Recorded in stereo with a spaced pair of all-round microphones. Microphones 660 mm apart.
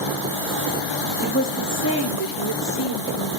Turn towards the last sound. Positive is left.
turn(degrees=30)  # may be behind; listen again after turning